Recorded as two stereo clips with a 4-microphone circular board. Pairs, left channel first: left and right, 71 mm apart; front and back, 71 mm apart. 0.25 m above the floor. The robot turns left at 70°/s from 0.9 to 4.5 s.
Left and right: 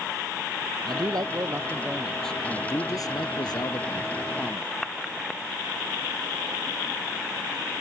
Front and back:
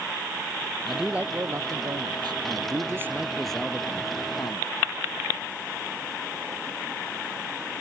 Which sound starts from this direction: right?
A man speaking, at 0.8 s.